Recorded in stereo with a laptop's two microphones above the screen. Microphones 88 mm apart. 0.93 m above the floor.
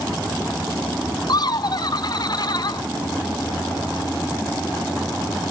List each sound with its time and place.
1.3 s laughter: 55° left (ahead or behind), 0.7 m